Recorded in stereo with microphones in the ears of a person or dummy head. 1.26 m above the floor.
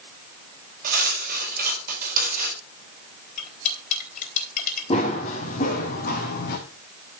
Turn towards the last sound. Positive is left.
turn(degrees=50)  # may be behind; listen again after turning